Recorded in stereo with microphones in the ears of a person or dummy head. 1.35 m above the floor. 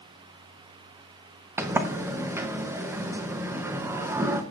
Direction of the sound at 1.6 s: 15° right (ahead or behind).